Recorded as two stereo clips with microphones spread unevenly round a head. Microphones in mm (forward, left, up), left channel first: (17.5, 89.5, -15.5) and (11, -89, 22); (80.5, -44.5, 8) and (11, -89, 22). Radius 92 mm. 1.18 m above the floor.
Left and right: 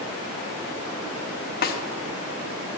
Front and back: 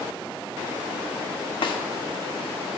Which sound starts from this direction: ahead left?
A snare drum, at 1.6 s.